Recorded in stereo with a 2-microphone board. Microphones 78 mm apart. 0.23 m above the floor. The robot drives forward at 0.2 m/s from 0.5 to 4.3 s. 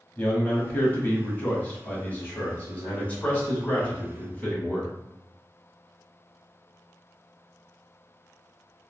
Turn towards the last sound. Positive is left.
turn(degrees=20)  # may be behind; listen again after turning